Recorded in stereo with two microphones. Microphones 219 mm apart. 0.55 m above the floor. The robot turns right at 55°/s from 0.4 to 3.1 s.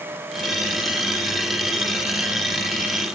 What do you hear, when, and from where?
Only background noise.